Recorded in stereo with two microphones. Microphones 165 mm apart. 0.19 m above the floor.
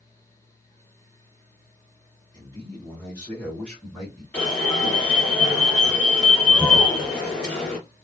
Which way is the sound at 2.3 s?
25° left (ahead or behind).